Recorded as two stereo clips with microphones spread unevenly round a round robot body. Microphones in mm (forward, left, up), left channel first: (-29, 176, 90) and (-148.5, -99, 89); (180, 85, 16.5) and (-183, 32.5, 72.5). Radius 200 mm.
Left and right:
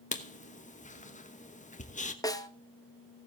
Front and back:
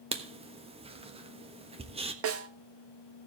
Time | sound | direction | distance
0.1 | writing | 110° left | 1.2 m
2.2 | a snare drum | 140° left | 1.2 m